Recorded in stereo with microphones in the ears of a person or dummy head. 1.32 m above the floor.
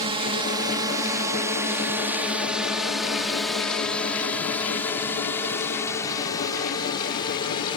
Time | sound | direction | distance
0.0 | a drone | 30° right (ahead or behind) | ?